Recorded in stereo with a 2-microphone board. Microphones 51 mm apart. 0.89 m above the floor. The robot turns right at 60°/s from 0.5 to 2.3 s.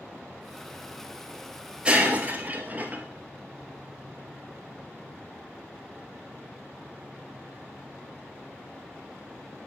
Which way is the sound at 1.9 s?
20° right (ahead or behind).